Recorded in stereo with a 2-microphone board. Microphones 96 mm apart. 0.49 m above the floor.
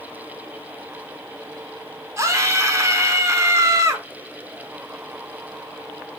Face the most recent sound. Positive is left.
turn(degrees=-30)  # may be behind; listen again after turning